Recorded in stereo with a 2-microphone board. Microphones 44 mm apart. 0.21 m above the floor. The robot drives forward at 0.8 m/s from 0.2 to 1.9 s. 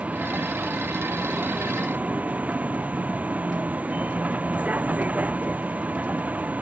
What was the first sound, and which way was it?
A vehicle, 30° right (ahead or behind).